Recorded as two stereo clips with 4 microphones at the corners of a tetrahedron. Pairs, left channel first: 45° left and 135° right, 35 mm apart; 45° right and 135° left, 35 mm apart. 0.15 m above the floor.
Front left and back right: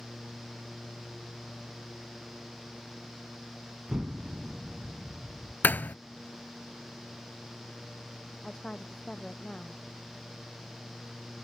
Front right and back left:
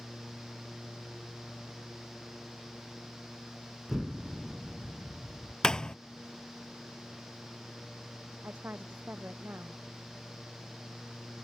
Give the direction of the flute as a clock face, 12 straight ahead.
I don't hear a flute.